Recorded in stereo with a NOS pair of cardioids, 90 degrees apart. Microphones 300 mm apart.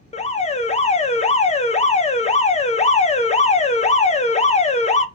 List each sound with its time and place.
0.1 s an alarm: 25° left, 0.7 m